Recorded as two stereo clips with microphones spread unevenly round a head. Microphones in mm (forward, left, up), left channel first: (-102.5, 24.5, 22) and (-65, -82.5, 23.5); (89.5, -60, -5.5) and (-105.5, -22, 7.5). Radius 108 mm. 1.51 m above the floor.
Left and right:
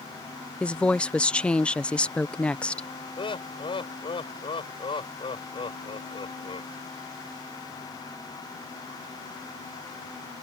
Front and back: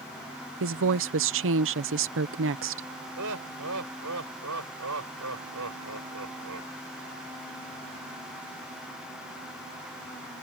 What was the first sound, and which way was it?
A woman speaking, 170° right.